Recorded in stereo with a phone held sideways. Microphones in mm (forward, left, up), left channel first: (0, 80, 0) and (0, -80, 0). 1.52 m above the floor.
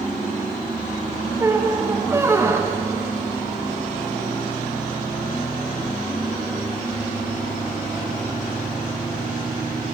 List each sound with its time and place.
1.4 s a squeak: 15° right (ahead or behind), 0.8 m